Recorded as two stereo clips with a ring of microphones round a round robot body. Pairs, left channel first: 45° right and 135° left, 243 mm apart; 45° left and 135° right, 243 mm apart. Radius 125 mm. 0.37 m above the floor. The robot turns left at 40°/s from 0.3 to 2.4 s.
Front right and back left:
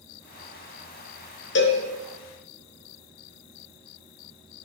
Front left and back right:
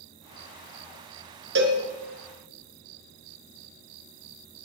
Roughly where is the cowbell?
Right.